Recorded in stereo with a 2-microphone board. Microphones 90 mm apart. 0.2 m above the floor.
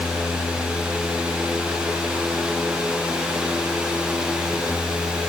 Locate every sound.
Only background noise.